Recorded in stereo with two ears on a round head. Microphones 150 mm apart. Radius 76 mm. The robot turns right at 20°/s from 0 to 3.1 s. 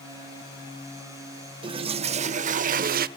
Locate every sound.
1.6 s a toilet flushing: 30° right (ahead or behind), 0.6 m; by 3.1 s 60° right (ahead or behind), 0.6 m